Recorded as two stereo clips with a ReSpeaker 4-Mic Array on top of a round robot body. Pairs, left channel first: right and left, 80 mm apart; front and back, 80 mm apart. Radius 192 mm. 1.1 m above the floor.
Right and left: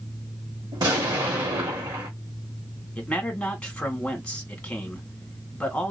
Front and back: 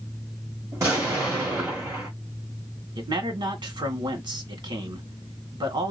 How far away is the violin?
No violin in this recording.